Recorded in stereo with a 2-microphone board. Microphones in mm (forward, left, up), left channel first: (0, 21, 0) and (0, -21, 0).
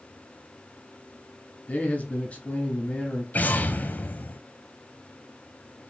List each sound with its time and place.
1.7 s a man speaking: 30° left (ahead or behind), 1.3 m
3.3 s an explosion: 40° left (ahead or behind), 0.6 m